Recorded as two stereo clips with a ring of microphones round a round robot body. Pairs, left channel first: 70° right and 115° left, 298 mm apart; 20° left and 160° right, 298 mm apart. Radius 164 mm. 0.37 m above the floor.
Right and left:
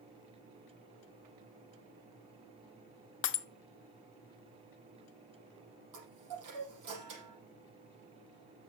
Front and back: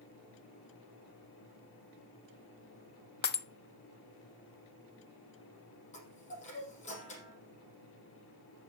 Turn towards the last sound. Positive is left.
turn(degrees=90)